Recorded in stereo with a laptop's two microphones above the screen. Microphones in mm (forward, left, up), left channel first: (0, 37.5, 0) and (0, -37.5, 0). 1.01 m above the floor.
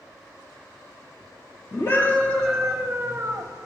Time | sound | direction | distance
1.7 | a scream | 40° left (ahead or behind) | 0.7 m